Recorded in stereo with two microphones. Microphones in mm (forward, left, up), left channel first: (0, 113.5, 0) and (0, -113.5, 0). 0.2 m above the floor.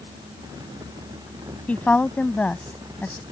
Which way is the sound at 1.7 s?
5° left (ahead or behind).